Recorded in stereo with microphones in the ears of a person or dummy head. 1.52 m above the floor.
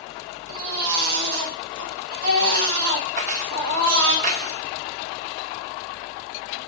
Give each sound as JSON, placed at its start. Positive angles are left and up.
{"t": 0.5, "sound": "a baby crying", "side_deg": -55, "distance_m": 1.5}
{"t": 3.2, "sound": "keys jangling", "side_deg": -45, "distance_m": 1.0}